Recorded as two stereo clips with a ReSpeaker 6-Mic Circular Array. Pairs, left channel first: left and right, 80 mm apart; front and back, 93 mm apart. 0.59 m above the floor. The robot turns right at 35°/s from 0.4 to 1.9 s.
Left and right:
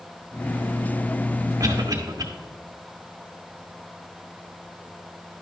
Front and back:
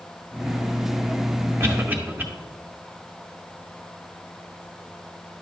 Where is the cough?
125° right, 1.6 m; by 2.2 s 115° right, 1.6 m.